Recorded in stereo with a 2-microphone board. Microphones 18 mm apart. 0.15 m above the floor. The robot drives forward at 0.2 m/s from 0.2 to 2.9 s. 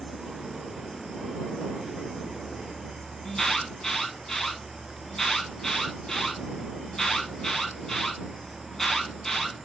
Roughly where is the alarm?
Left.